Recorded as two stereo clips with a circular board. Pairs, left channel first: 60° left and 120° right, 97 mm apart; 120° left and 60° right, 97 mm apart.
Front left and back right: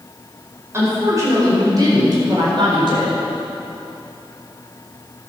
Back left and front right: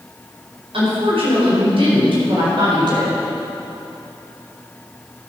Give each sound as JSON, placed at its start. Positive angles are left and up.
{"t": 0.7, "sound": "a woman speaking", "azimuth_deg": -60, "distance_m": 4.5}